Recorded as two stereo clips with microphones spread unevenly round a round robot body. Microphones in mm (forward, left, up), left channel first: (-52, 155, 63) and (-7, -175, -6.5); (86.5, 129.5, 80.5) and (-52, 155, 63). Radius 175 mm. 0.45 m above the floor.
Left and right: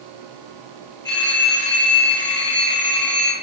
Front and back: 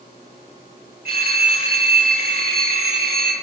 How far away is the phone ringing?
About 8 m.